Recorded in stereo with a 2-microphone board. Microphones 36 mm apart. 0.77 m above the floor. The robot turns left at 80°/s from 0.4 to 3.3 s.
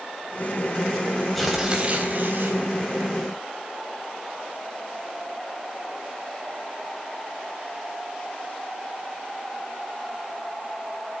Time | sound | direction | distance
1.4 | tearing paper | 5° left | 3.5 m